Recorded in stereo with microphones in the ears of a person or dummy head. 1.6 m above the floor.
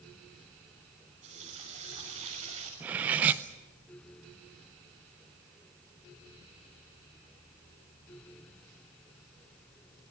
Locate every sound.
1.2 s a running tap: 35° right (ahead or behind), 7 m
2.8 s cutlery clinking: 15° right (ahead or behind), 0.7 m